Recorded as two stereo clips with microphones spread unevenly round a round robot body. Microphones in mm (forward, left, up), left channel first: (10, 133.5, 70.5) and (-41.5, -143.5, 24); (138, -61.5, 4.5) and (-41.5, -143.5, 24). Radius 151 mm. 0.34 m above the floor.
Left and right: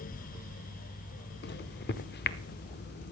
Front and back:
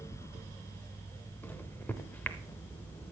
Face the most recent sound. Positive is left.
turn(degrees=80)